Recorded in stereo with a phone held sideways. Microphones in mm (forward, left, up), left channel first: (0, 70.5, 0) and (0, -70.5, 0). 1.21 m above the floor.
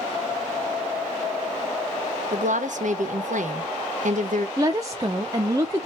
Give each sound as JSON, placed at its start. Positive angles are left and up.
{"t": 2.3, "sound": "a woman speaking", "side_deg": -70, "distance_m": 1.2}
{"t": 4.6, "sound": "a woman speaking", "side_deg": -25, "distance_m": 0.7}